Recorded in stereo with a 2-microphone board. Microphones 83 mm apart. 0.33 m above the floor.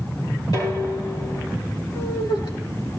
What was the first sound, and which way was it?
Dishes clattering, 55° left (ahead or behind).